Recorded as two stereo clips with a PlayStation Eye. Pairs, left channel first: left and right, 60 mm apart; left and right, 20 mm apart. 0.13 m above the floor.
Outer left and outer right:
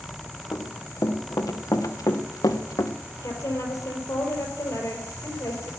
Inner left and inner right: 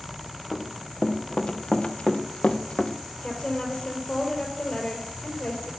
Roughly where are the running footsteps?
Left.